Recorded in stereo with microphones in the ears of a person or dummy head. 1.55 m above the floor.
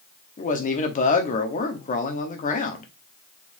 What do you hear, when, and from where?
0.4 s a man speaking: 40° left (ahead or behind), 0.9 m